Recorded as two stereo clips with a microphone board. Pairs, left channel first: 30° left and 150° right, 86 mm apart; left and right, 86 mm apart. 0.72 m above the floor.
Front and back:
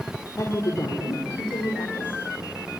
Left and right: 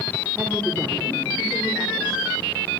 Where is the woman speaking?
20° right, 2 m; by 2.2 s 20° left, 3 m.